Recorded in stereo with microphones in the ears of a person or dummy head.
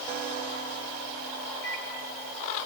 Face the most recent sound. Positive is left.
turn(degrees=75)  # may be behind; listen again after turning